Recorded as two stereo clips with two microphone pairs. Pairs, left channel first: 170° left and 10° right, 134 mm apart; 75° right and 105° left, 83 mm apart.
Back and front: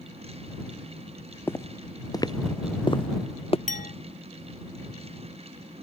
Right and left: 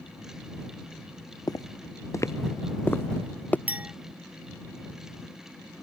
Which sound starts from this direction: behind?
A clink, at 3.7 s.